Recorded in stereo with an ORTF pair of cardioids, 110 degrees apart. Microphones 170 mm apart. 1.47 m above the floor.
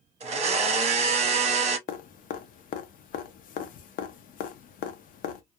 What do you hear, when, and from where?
0.2 s a blender: 40° right, 0.8 m
1.9 s dripping: 55° left, 0.6 m